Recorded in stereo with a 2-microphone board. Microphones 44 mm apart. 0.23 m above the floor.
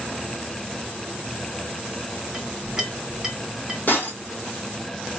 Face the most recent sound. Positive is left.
turn(degrees=40)  # may be behind; listen again after turning